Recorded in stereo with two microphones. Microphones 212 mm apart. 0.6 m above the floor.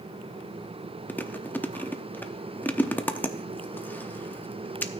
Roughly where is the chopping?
No chopping in this recording.